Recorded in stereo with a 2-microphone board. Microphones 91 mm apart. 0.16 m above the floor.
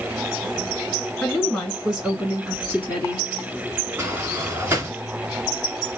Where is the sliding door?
25° right (ahead or behind), 2.5 m.